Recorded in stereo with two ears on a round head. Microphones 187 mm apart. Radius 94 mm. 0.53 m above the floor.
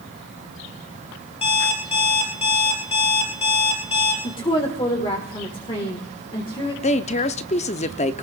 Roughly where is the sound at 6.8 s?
Left.